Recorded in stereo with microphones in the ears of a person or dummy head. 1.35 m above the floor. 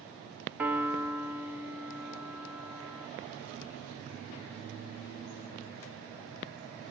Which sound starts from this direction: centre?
A piano, at 0.6 s.